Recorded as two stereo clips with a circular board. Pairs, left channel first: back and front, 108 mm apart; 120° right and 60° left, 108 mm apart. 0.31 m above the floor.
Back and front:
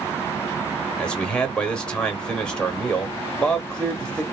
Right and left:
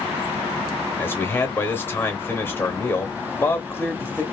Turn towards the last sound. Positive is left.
turn(degrees=-120)